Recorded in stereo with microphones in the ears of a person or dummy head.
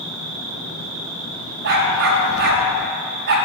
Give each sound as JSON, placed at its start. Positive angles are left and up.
{"t": 0.0, "sound": "an insect", "side_deg": -85, "distance_m": 2.5}
{"t": 1.6, "sound": "a dog barking", "side_deg": -60, "distance_m": 3.0}